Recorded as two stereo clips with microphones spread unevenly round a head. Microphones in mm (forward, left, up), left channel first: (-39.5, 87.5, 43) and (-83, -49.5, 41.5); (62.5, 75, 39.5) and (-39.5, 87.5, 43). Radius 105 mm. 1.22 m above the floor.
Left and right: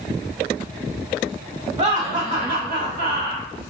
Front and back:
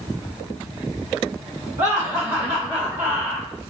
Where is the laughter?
150° right, 1.6 m; by 3.5 s 105° right, 2.0 m.